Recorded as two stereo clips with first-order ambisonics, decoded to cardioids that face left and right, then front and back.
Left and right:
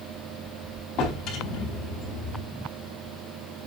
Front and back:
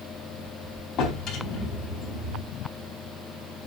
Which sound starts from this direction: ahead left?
A drawer, at 1.0 s.